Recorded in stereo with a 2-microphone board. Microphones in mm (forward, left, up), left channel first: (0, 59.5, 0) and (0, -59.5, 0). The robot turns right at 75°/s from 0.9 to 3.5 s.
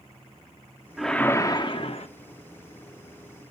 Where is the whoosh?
5° right, 0.7 m; by 2.1 s 80° left, 0.7 m.